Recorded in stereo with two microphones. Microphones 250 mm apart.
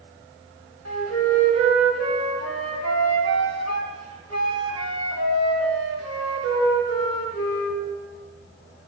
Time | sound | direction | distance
0.8 | a flute | 70° right (ahead or behind) | 1.4 m